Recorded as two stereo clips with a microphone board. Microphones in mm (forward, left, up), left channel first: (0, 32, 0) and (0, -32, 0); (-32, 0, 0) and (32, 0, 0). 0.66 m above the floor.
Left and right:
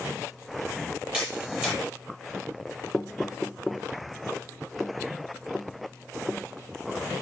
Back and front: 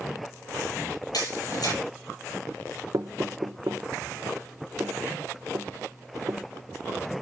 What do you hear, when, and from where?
1.1 s a camera shutter: 165° right, 10 m
2.9 s knocking: straight ahead, 1.0 m